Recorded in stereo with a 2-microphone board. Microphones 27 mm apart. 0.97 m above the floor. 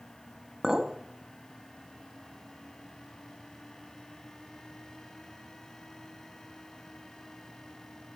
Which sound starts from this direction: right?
A clink, at 0.6 s.